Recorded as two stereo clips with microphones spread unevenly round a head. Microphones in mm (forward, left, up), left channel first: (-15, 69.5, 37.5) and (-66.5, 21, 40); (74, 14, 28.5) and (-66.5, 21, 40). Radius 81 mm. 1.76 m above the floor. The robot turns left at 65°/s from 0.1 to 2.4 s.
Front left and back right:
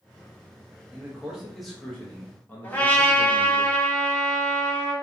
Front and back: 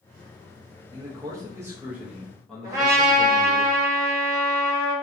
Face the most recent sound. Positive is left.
turn(degrees=110)